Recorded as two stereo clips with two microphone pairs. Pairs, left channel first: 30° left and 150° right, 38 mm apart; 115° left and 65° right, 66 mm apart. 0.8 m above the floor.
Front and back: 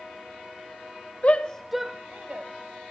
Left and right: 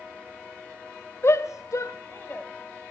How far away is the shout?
About 0.7 m.